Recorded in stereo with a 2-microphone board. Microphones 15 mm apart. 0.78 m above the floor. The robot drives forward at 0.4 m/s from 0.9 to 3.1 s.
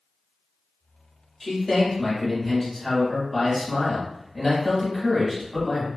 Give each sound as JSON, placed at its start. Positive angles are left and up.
{"t": 1.4, "sound": "a man speaking", "side_deg": 20, "distance_m": 1.4}